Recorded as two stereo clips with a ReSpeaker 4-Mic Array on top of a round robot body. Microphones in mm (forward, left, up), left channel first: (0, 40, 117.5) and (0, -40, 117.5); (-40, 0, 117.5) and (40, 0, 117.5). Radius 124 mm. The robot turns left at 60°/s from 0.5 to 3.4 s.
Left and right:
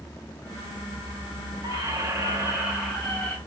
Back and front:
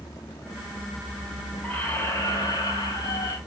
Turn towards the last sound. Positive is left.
turn(degrees=155)